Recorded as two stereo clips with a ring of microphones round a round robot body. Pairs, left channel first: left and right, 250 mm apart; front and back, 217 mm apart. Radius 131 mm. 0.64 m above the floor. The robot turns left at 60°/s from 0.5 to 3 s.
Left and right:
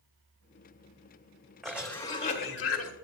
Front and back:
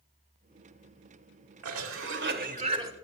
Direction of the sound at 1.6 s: Straight behind.